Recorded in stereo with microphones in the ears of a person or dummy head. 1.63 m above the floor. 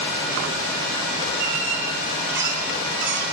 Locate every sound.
1.4 s a squeak: 60° right (ahead or behind), 7 m